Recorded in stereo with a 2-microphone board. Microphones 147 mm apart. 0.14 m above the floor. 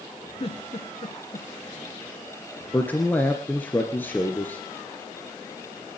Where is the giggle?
40° left (ahead or behind), 2 m.